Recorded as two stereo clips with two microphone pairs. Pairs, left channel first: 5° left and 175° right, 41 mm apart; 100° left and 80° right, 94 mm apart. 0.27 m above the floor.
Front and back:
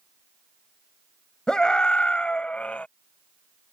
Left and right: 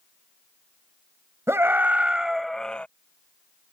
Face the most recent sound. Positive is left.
turn(degrees=30)